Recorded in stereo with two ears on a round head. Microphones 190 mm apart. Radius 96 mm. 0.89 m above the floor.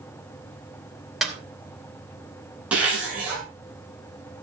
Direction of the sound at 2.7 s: 5° right (ahead or behind).